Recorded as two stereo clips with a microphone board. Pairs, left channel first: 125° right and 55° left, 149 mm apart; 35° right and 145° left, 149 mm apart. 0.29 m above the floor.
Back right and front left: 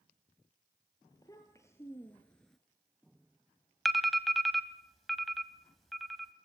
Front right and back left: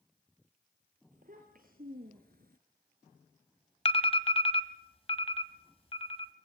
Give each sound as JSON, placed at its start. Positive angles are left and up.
{"t": 1.1, "sound": "a child speaking", "azimuth_deg": 170, "distance_m": 3.0}
{"t": 3.9, "sound": "an alarm", "azimuth_deg": -35, "distance_m": 1.6}